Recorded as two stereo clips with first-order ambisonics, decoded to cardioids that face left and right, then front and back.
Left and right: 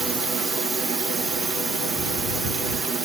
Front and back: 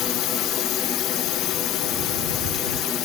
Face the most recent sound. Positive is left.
turn(degrees=-15)